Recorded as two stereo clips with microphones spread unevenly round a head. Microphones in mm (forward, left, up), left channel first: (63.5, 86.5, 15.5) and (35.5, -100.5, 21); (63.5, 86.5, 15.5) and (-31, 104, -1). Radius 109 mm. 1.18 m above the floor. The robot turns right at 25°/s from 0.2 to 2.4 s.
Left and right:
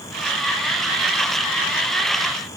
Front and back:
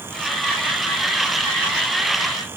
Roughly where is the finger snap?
I don't hear a finger snap.